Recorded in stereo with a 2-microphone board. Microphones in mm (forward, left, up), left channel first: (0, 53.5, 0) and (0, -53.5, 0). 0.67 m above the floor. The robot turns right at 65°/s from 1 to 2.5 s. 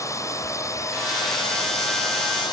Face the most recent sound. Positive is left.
turn(degrees=130)